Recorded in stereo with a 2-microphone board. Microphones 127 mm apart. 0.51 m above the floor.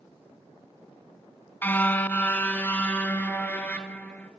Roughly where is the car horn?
Centre.